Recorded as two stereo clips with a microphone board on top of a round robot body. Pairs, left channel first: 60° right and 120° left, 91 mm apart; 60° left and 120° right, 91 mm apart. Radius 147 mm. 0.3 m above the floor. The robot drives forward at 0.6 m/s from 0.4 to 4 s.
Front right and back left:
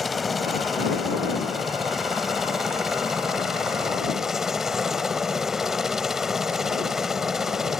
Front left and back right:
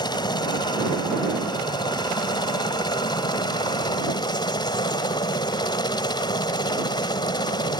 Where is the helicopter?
30° left; by 7.8 s 35° left.